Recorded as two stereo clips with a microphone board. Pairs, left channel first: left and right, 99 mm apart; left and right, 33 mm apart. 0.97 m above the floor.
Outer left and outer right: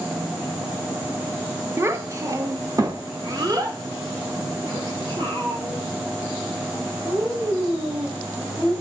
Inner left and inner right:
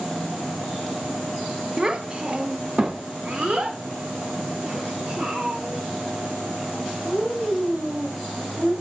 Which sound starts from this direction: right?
A child speaking, at 1.8 s.